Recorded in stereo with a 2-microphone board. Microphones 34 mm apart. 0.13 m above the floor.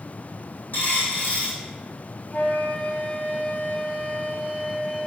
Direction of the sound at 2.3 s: 55° left (ahead or behind).